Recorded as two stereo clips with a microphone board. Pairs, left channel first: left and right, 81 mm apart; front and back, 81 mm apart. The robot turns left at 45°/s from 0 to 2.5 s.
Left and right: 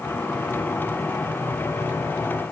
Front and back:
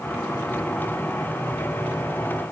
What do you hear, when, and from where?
Only background noise.